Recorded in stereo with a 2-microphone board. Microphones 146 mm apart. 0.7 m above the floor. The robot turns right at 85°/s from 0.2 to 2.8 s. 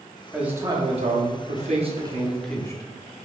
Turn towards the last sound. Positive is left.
turn(degrees=30)